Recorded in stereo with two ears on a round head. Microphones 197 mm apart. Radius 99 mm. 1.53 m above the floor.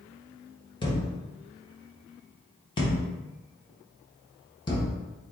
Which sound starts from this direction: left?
A thud, at 0.8 s.